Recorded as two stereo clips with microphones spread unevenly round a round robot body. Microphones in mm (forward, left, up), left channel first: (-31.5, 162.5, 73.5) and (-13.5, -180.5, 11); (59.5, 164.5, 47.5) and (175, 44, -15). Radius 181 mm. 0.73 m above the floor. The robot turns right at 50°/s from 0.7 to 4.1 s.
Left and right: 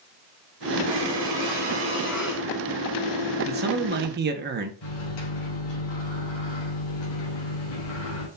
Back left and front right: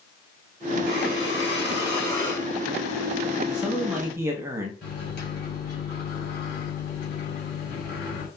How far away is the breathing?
About 2 m.